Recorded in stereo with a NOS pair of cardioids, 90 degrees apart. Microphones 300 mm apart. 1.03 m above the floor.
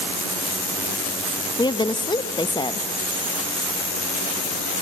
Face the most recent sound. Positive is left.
turn(degrees=15)